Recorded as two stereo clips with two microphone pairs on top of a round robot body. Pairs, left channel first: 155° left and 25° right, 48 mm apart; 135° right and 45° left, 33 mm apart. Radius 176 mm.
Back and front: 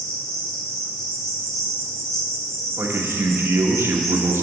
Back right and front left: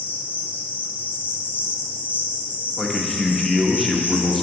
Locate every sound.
0.0 s an insect: 125° right, 1.8 m
2.8 s a man speaking: 55° right, 1.4 m